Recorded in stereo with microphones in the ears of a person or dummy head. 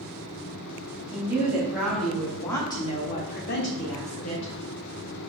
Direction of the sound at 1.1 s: 15° right (ahead or behind).